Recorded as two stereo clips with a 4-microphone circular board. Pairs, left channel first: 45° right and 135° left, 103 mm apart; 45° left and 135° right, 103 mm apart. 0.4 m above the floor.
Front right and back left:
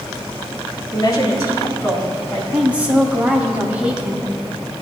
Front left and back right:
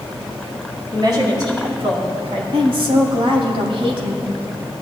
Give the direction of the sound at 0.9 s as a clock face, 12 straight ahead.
3 o'clock.